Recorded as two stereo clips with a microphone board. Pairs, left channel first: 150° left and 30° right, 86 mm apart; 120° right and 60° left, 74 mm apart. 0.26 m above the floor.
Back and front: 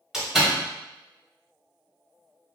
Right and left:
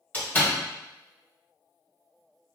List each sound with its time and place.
0.1 s a door slam: 100° right, 1.1 m